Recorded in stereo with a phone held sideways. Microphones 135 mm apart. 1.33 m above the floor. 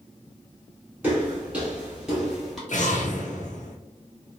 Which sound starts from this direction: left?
An explosion, at 2.7 s.